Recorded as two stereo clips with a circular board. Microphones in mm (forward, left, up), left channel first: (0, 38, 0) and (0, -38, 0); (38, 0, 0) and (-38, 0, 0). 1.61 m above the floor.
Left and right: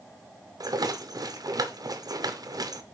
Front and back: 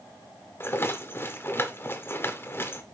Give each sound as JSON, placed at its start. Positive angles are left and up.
{"t": 0.6, "sound": "a rattle", "azimuth_deg": -60, "distance_m": 0.9}